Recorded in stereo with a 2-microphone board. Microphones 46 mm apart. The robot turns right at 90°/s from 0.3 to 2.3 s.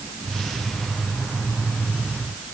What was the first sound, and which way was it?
Only background noise.